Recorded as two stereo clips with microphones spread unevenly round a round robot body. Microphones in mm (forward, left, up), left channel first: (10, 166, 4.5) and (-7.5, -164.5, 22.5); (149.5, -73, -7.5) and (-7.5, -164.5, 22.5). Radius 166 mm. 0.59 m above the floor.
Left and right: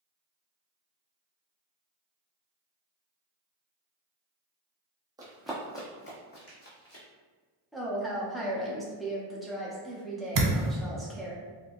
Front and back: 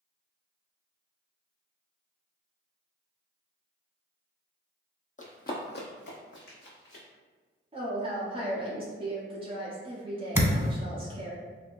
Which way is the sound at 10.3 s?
80° right.